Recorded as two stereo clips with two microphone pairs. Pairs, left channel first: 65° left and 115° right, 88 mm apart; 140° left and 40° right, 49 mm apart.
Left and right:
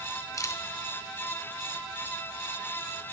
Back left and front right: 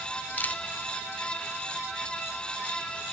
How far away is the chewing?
I don't hear chewing.